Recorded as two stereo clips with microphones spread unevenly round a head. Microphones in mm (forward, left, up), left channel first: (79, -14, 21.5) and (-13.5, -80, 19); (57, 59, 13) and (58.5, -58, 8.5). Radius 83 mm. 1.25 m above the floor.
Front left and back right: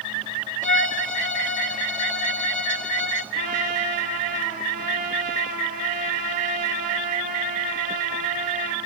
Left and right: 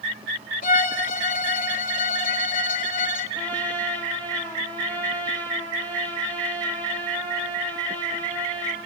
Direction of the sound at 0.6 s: 120° left.